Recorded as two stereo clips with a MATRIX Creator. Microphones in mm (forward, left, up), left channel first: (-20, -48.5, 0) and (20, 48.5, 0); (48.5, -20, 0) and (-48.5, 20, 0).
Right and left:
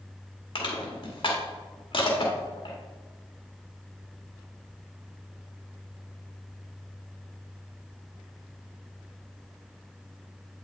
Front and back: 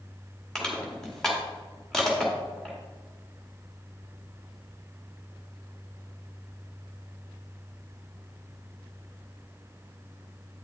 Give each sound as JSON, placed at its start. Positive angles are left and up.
{"t": 0.6, "sound": "crushing", "azimuth_deg": -105, "distance_m": 1.9}